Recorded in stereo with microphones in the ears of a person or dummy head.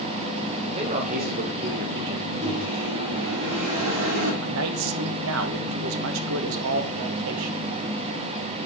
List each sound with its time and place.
0.8 s a man speaking: 30° right (ahead or behind), 0.8 m; by 2.3 s 65° right (ahead or behind), 1.3 m
2.4 s a microwave: 60° right (ahead or behind), 4 m
4.4 s a man speaking: 70° right (ahead or behind), 1.1 m